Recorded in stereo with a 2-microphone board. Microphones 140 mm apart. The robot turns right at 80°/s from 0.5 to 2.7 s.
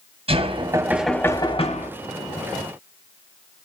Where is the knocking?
45° right, 2 m; by 1.9 s 65° left, 2 m.